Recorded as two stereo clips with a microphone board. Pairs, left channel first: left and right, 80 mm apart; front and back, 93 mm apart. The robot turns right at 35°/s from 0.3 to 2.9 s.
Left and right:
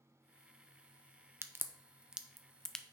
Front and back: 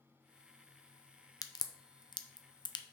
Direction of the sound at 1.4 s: 35° right.